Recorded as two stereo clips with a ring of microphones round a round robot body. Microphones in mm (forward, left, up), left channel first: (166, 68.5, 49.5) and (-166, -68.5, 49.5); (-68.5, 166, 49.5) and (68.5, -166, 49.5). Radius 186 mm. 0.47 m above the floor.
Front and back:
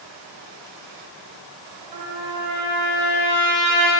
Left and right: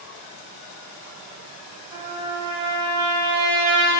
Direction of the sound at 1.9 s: 145° right.